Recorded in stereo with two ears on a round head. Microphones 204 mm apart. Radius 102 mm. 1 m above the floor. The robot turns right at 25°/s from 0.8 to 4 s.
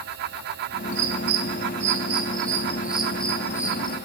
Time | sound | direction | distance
0.9 | a bird | 55° right (ahead or behind) | 2.5 m